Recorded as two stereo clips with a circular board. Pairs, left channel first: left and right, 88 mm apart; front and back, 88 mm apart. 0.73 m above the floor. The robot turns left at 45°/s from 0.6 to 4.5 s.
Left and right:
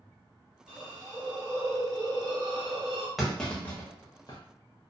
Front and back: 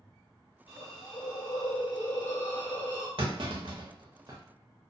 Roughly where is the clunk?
Behind.